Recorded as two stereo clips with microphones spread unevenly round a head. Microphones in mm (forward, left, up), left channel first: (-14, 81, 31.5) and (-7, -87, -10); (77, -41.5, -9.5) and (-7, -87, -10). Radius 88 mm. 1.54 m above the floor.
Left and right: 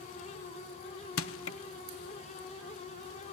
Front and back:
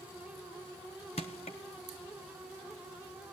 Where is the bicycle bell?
No bicycle bell in this recording.